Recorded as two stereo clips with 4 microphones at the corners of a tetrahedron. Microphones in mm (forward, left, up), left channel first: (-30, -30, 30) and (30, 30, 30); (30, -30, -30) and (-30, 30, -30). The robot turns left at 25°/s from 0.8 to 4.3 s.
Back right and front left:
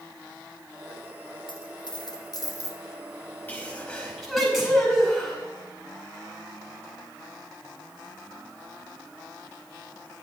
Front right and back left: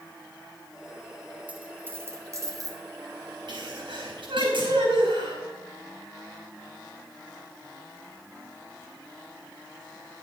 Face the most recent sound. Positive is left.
turn(degrees=135)